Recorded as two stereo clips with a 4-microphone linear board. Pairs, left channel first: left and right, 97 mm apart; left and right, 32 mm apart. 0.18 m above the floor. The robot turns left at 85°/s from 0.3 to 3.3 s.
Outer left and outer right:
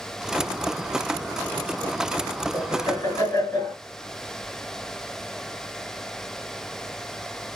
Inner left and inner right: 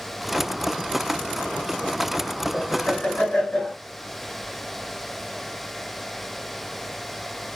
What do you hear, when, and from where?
2.5 s laughter: 100° left, 2.5 m; by 3.8 s 35° left, 2.5 m